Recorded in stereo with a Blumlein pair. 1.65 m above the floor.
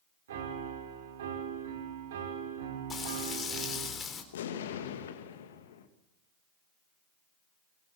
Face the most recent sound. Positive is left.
turn(degrees=60)